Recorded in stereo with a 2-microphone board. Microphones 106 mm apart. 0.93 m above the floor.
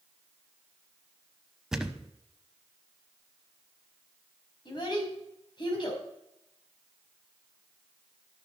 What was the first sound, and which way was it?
A thud, 5° right (ahead or behind).